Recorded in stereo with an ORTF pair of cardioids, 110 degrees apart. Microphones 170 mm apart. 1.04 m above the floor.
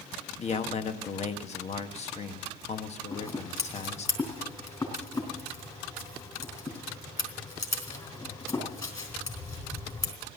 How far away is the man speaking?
About 1.5 m.